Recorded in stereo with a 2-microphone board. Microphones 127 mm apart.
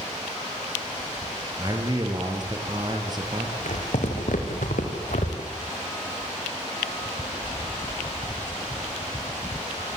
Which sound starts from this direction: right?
A man speaking, at 1.6 s.